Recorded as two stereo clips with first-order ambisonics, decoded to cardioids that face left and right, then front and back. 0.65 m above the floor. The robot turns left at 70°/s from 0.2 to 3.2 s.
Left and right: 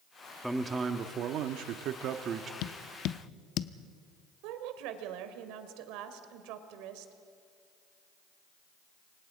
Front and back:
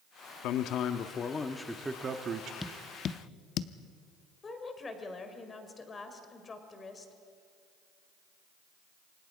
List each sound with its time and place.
0.4 s a man speaking: 5° right, 1.1 m; by 2.5 s 150° right, 1.1 m
2.6 s tapping: 85° left, 0.7 m; by 3.7 s 45° left, 0.7 m
4.4 s a woman speaking: 75° right, 2 m